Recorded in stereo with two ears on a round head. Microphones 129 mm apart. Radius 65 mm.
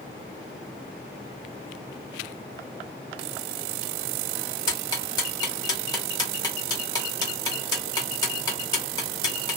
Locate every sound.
4.7 s ticking: 30° left (ahead or behind), 1.2 m